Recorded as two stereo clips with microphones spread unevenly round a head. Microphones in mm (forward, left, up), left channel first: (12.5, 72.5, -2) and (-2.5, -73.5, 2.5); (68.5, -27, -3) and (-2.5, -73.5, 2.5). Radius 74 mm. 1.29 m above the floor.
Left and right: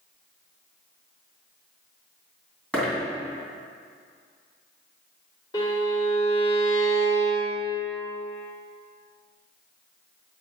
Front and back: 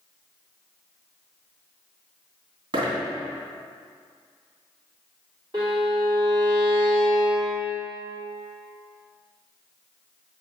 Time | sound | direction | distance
2.7 | a dropped coin | 170° left | 2.5 m
5.5 | a violin | 150° left | 2.5 m